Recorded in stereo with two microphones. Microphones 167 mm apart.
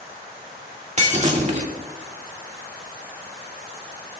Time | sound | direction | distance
1.0 | breaking glass | 45° right (ahead or behind) | 1.9 m